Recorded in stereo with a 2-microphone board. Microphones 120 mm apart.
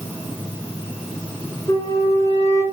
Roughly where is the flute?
Left.